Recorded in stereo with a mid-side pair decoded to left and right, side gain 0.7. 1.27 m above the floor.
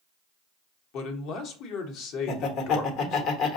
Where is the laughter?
55° left, 1.0 m.